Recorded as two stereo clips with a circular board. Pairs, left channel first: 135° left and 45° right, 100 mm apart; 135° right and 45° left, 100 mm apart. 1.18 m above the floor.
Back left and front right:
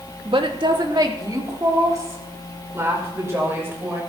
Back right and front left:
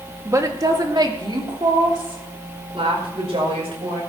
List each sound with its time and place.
0.2 s a woman speaking: 15° right, 2 m; by 4.0 s 25° left, 6 m